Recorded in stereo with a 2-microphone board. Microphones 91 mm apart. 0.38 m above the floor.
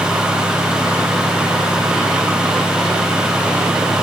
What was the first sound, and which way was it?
Only background noise.